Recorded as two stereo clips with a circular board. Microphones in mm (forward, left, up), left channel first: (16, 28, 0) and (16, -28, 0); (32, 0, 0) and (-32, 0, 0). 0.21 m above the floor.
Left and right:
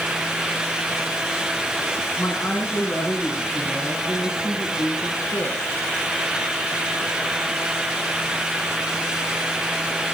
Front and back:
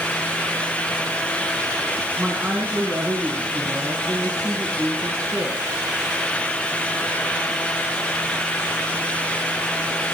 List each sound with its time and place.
2.2 s a woman speaking: 110° left, 2.5 m; by 5.7 s 105° left, 4 m